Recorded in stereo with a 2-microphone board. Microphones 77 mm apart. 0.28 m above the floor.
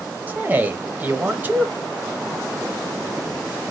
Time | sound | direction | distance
0.3 | a man speaking | 25° right (ahead or behind) | 0.9 m